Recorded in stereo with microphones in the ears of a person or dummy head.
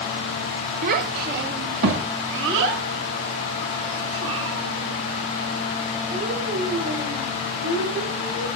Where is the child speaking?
50° right (ahead or behind), 0.8 m; by 8.5 s 85° right, 4.5 m.